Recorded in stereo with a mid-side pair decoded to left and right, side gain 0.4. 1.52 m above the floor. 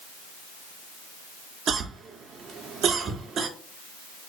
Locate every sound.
1.7 s a cough: 65° right, 0.8 m